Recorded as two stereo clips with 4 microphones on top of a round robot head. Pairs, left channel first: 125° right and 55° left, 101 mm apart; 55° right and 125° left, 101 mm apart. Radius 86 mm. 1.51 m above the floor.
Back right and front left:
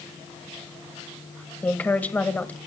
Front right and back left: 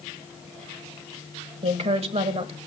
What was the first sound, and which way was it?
A woman speaking, 160° left.